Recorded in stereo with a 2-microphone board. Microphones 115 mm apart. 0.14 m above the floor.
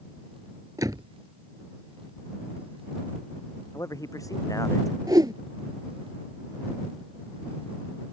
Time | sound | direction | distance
0.8 | a door slam | 30° right (ahead or behind) | ?
3.7 | a man speaking | 30° left (ahead or behind) | ?
5.1 | a whoosh | 35° right (ahead or behind) | ?